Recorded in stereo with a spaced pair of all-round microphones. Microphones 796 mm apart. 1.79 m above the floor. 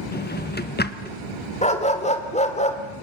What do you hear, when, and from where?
0.1 s a drawer: 10° left (ahead or behind), 1.0 m
1.6 s a dog barking: 10° left (ahead or behind), 2 m